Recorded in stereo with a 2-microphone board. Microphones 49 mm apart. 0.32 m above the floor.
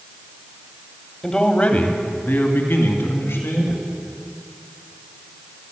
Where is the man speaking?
15° left (ahead or behind), 1.6 m; by 3.9 s 70° left (ahead or behind), 3.5 m.